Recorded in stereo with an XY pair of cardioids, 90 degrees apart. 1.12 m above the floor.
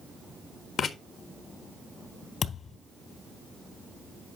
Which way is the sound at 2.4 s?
60° left.